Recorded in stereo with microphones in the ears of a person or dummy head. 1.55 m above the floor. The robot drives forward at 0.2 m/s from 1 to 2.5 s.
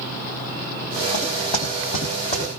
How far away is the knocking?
About 4 m.